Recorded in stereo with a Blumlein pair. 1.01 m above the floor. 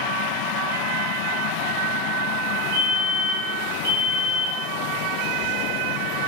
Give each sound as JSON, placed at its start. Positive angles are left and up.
{"t": 2.7, "sound": "a fire alarm", "azimuth_deg": -55, "distance_m": 6.0}